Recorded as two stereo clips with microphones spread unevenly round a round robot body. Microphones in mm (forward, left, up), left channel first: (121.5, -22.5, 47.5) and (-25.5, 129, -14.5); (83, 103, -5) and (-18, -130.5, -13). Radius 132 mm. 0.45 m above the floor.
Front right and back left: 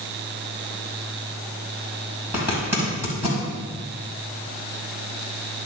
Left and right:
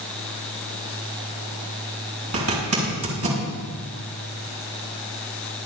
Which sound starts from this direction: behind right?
A zipper, at 2.3 s.